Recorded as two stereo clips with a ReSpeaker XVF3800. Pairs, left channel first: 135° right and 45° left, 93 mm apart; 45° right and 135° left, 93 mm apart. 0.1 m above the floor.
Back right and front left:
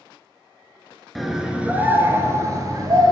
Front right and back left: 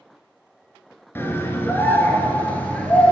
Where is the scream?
50° right, 1.3 m; by 3.1 s 25° left, 1.8 m.